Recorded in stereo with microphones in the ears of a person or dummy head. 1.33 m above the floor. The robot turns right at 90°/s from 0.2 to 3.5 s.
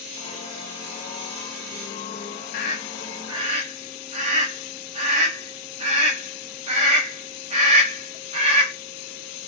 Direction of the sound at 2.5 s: 45° left (ahead or behind).